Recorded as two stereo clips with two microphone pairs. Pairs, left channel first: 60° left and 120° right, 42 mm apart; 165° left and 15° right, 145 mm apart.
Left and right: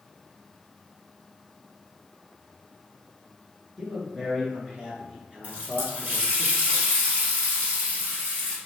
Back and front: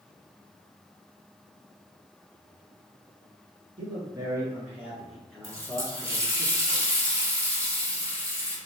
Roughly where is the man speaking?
Ahead right.